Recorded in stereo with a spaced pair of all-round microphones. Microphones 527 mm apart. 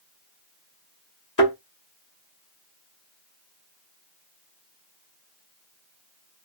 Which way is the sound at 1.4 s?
35° left (ahead or behind).